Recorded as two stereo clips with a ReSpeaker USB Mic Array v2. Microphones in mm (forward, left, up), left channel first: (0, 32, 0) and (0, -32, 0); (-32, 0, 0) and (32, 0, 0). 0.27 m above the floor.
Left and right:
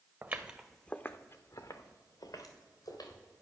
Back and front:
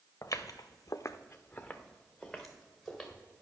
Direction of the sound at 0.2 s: 145° right.